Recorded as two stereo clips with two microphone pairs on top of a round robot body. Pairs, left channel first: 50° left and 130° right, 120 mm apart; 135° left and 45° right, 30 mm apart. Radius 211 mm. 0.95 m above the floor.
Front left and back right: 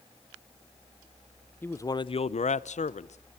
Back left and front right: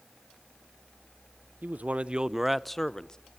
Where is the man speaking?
30° right, 0.8 m; by 3.2 s 75° left, 1.2 m.